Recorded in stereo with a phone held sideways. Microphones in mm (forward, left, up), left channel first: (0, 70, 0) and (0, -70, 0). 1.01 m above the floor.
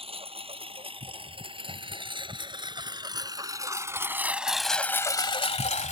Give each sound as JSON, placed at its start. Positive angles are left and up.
{"t": 0.0, "sound": "a lawn mower", "side_deg": -45}